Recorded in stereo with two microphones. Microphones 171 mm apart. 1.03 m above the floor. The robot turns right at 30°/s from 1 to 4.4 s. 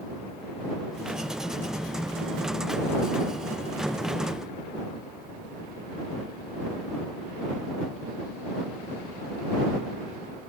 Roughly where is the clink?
No clink in this recording.